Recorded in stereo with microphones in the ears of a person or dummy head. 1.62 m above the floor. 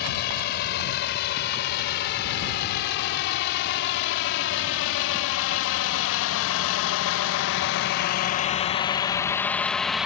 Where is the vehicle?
55° left (ahead or behind); by 10.1 s centre (ahead or behind).